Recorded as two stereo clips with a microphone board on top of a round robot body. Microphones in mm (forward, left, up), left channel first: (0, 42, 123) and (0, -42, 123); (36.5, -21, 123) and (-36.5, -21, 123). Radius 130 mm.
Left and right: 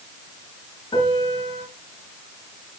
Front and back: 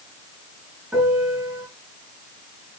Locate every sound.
0.9 s a piano: 105° left, 5 m